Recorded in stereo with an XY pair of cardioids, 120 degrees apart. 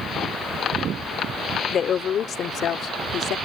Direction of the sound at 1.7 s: 45° left.